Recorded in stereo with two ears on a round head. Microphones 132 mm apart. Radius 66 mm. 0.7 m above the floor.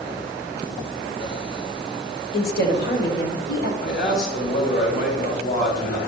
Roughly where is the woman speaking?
Left.